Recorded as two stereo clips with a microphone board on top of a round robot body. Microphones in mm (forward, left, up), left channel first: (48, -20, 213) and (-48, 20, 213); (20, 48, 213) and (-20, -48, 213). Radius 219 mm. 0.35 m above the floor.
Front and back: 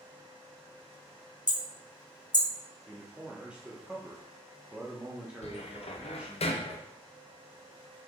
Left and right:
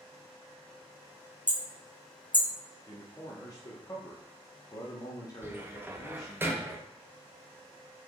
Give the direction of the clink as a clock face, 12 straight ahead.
I don't hear a clink.